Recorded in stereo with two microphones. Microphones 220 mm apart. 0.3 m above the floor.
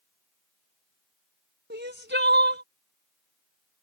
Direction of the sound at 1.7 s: 55° right (ahead or behind).